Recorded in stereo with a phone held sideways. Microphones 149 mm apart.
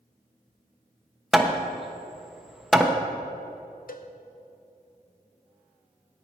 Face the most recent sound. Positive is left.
turn(degrees=75)  # may be behind; listen again after turning